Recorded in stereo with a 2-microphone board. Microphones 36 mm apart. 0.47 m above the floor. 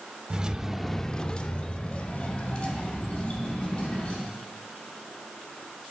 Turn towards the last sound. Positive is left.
turn(degrees=35)  # may be behind; listen again after turning